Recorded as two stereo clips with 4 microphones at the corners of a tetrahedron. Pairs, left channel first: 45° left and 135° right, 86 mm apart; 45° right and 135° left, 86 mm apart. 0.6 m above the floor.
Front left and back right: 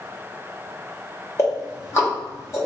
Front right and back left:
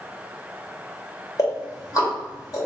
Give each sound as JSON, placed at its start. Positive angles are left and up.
{"t": 1.4, "sound": "ticking", "azimuth_deg": -5, "distance_m": 2.0}